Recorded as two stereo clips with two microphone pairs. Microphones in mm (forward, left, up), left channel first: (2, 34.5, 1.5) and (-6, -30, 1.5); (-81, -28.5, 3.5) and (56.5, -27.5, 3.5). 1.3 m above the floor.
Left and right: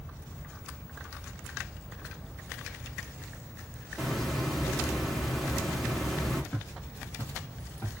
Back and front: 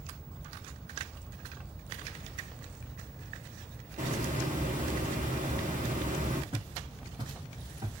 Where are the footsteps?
20° left, 1.8 m; by 7.9 s 55° left, 1.8 m.